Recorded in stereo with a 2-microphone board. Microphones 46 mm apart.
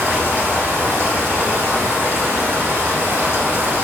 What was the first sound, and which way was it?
Running water, 65° right (ahead or behind).